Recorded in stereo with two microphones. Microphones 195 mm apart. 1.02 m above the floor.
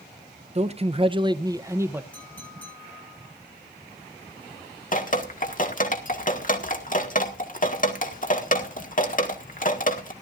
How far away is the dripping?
About 1.7 m.